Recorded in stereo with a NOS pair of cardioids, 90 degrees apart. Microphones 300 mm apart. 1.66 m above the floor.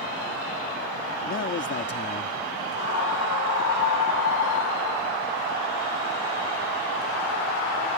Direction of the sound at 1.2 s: 45° left.